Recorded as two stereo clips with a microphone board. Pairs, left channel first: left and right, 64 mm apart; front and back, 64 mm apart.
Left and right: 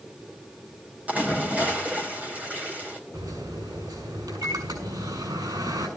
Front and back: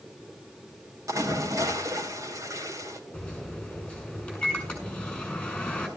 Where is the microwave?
75° right, 6.5 m.